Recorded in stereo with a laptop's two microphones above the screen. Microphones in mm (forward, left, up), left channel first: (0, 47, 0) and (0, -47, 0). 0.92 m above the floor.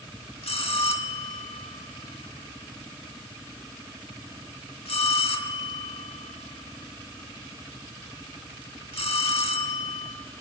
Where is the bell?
85° left, 1.5 m.